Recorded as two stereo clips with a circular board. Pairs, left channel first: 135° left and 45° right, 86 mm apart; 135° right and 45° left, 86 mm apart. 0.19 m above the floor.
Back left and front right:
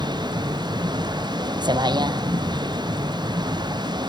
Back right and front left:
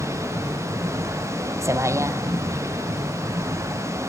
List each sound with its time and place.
0.0 s a vehicle: 10° right